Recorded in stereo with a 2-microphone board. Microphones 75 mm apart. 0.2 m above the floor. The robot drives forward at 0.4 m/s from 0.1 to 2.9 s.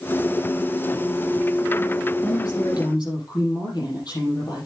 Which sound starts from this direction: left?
A woman speaking, at 2.2 s.